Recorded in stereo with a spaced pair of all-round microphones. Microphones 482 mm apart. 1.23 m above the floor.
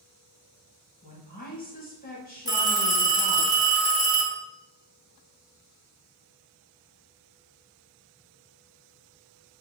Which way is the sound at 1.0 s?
20° left (ahead or behind).